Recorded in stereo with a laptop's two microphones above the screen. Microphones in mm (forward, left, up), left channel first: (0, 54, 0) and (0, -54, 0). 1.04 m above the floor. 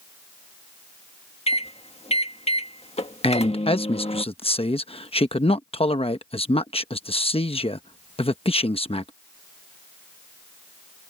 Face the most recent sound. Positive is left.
turn(degrees=55)  # may be behind; listen again after turning